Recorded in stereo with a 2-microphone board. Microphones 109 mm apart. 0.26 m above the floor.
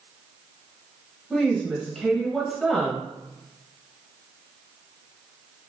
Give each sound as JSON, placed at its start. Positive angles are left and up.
{"t": 1.3, "sound": "a woman speaking", "side_deg": 0, "distance_m": 0.9}